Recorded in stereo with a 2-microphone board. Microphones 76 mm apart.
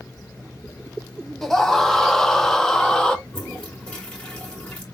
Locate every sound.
1.4 s a scream: 5° left (ahead or behind), 1.1 m
3.3 s a toilet flushing: 15° left (ahead or behind), 2.5 m